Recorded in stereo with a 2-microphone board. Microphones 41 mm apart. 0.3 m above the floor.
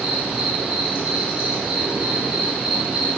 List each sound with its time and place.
0.0 s an insect: 20° right (ahead or behind), 0.7 m